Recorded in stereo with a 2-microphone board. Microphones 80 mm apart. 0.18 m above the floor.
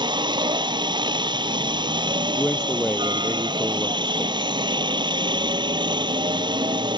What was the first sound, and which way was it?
A helicopter, 70° right (ahead or behind).